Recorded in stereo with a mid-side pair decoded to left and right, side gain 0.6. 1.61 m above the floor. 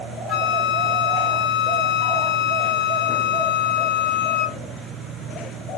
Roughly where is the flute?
Ahead left.